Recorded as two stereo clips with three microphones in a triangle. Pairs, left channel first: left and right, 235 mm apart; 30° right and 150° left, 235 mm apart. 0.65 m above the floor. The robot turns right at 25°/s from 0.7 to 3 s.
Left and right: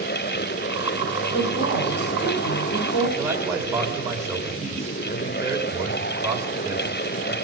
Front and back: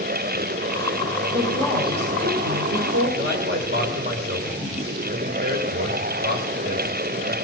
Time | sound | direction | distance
1.3 | a woman speaking | 75° left | 2 m
3.2 | a man speaking | 165° right | 2.5 m